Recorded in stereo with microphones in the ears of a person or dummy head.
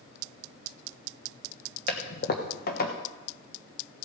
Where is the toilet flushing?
45° left (ahead or behind), 1.2 m.